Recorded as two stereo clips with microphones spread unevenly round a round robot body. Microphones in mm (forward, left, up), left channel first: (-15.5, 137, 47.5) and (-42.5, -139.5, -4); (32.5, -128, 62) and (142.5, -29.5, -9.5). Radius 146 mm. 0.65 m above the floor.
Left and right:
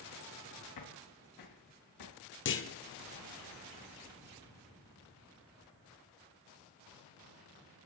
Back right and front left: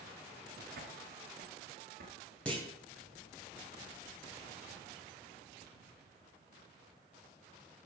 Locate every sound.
0.8 s footsteps: 75° left, 2.5 m; by 2.1 s 85° left, 4.5 m
2.5 s a clunk: 135° left, 1.1 m